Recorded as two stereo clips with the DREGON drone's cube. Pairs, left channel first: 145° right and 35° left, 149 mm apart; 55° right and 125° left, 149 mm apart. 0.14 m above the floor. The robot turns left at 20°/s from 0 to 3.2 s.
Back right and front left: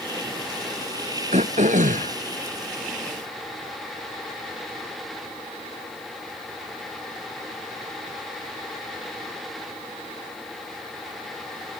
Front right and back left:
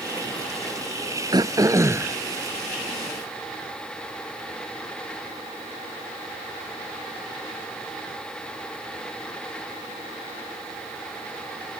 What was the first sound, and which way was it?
Throat clearing, 65° left.